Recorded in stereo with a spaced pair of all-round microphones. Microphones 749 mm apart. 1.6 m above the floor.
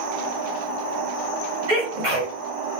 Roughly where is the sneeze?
Right.